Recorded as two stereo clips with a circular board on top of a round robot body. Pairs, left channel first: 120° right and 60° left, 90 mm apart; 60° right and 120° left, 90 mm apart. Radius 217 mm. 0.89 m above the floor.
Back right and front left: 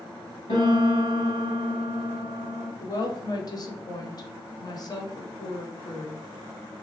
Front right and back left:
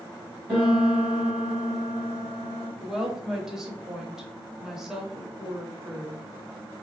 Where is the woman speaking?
155° right, 1.1 m.